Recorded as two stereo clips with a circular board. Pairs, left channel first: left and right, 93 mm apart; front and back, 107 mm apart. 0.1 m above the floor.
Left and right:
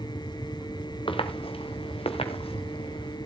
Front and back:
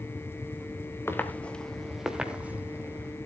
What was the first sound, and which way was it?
Footsteps, 65° left.